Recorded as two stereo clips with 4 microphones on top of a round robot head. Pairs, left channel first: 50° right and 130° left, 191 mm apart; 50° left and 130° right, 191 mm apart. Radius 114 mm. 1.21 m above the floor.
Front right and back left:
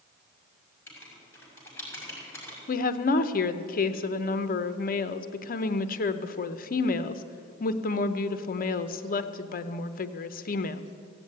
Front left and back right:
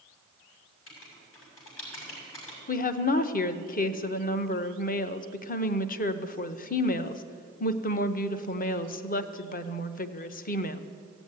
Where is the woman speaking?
Straight ahead, 0.7 m.